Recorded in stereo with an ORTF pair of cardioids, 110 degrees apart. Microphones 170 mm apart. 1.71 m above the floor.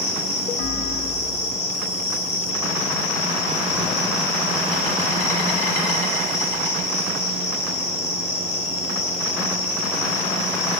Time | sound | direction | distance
0.0 | an insect | 45° left | 1.7 m